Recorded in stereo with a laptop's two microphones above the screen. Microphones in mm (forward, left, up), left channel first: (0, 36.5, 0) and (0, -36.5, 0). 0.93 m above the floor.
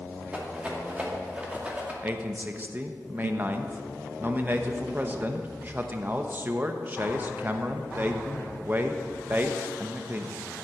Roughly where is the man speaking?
Right.